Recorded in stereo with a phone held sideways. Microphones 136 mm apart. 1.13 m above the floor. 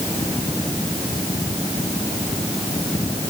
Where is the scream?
No scream in this recording.